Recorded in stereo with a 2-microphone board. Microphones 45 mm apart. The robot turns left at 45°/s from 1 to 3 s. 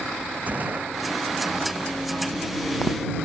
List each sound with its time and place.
0.5 s a gunshot: 35° right (ahead or behind)